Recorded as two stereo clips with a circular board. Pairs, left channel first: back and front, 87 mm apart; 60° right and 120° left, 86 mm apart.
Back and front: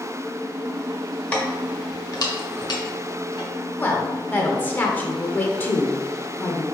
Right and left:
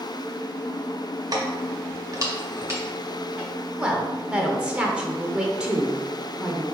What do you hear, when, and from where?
1.3 s keys jangling: 110° left, 1.1 m; by 3.5 s 170° right, 1.7 m
3.8 s a woman speaking: 175° left, 0.8 m